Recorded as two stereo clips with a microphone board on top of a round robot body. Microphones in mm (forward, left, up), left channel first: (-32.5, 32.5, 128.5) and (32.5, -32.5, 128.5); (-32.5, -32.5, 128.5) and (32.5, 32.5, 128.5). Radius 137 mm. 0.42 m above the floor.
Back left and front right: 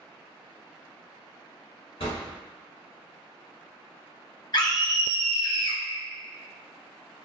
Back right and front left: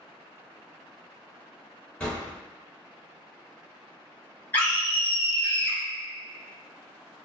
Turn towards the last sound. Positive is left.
turn(degrees=160)